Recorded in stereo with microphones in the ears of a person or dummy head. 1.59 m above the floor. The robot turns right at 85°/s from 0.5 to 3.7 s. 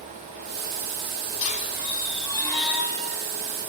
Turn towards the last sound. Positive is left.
turn(degrees=-85)